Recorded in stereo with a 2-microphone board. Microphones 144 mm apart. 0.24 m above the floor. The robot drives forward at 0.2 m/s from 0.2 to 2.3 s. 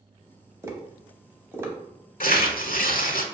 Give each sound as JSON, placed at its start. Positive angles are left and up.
{"t": 0.6, "sound": "tapping", "side_deg": -20, "distance_m": 0.8}
{"t": 2.2, "sound": "tearing paper", "side_deg": 75, "distance_m": 0.6}